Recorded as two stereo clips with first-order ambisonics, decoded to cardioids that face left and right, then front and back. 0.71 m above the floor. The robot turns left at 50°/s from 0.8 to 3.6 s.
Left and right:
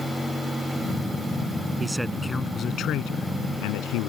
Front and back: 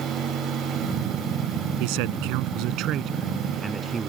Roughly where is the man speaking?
Behind.